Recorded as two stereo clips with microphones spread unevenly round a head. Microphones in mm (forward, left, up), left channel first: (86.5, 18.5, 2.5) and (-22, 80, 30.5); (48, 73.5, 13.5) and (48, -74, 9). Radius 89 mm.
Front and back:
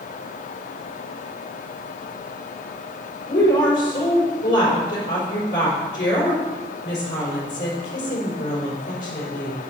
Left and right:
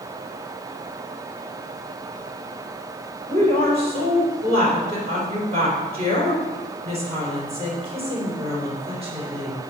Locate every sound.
3.3 s a woman speaking: 50° right, 3.5 m